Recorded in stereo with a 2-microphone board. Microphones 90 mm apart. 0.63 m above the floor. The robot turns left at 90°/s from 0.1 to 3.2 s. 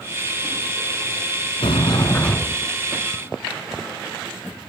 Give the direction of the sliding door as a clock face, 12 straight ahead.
9 o'clock.